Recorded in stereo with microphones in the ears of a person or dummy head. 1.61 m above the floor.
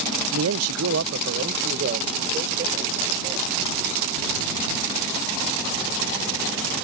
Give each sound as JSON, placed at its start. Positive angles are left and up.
{"t": 0.3, "sound": "a man speaking", "side_deg": -70}